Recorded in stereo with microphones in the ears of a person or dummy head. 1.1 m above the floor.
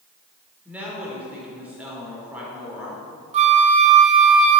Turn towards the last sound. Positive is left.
turn(degrees=-30)  # may be behind; listen again after turning